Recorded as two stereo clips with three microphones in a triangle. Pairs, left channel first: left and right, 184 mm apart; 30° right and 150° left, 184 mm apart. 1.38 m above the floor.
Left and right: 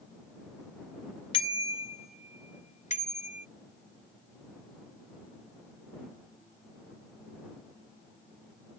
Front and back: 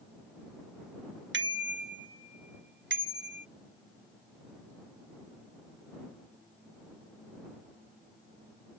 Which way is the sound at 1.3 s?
150° left.